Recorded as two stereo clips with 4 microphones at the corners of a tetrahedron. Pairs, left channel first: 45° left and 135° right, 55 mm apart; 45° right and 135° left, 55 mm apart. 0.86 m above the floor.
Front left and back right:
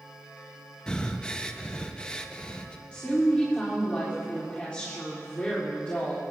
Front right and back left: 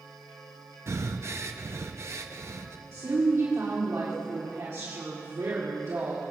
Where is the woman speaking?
115° left, 2.5 m.